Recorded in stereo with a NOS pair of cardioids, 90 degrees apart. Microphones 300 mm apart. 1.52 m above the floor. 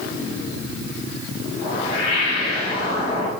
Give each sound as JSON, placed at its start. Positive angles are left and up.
{"t": 1.6, "sound": "a whoosh", "azimuth_deg": 60, "distance_m": 4.0}